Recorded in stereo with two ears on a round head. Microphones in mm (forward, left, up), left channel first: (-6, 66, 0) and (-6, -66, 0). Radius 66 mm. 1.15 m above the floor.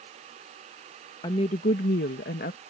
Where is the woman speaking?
30° left (ahead or behind); by 2.6 s 60° left (ahead or behind).